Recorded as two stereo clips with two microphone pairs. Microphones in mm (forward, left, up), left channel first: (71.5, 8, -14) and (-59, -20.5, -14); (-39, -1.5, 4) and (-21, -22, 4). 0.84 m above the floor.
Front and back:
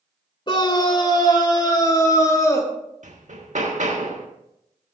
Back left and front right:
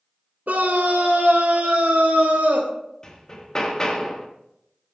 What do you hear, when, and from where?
0.5 s a scream: 40° right, 2.5 m; by 2.7 s 55° right, 4 m
3.0 s hammering: 165° right, 1.6 m